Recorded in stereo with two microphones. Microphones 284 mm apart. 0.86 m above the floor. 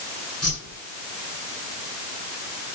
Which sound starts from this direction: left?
A whoosh, at 0.4 s.